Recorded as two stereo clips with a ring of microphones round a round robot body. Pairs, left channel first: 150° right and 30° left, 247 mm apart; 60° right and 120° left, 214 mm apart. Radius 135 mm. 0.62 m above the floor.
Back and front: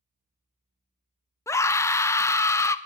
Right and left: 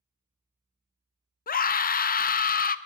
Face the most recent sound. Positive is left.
turn(degrees=-75)